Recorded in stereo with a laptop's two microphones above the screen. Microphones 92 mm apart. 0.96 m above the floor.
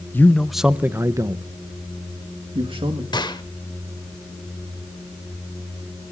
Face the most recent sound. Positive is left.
turn(degrees=50)  # may be behind; listen again after turning